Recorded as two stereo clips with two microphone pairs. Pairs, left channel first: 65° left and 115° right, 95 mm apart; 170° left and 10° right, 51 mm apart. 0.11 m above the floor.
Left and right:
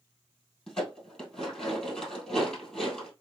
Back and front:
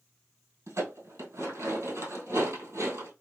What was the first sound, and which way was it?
Dishes clattering, 20° right.